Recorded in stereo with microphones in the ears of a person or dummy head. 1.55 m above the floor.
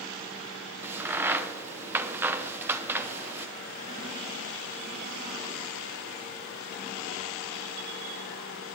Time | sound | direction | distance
0.8 | a crack | 10° right (ahead or behind) | 0.8 m